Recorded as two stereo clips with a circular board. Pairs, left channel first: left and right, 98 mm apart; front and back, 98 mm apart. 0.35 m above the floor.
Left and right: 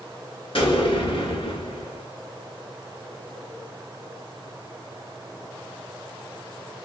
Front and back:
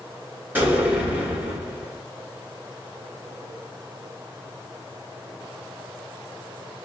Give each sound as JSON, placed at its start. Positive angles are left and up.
{"t": 0.6, "sound": "an explosion", "azimuth_deg": 110, "distance_m": 1.8}